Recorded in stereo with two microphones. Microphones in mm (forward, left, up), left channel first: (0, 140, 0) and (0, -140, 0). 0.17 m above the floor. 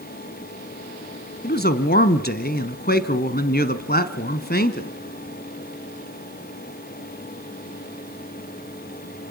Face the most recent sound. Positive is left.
turn(degrees=35)  # may be behind; listen again after turning